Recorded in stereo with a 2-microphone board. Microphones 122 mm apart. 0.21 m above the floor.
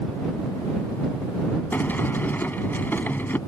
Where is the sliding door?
15° left (ahead or behind).